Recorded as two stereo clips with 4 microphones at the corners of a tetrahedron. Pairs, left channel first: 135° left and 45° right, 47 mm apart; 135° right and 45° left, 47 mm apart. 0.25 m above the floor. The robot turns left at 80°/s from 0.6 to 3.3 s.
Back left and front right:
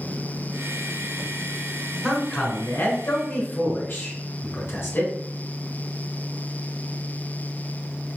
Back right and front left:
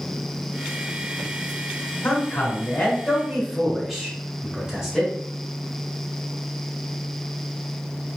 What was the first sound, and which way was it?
A man speaking, 135° right.